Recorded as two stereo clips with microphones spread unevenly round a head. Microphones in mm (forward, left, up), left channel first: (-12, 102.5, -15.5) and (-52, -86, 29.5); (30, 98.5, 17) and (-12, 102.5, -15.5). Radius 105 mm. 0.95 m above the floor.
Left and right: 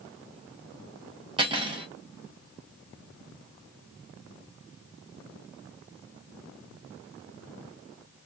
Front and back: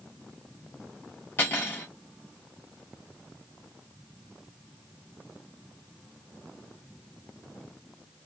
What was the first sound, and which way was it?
Cutlery clinking, 35° right.